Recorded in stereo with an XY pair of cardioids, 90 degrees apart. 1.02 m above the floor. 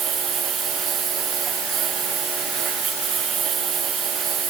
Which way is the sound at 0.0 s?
65° right.